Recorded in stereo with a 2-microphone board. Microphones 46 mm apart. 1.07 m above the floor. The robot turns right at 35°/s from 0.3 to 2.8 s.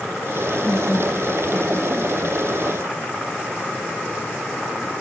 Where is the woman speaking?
160° left, 5.5 m; by 2.5 s 135° right, 5.5 m.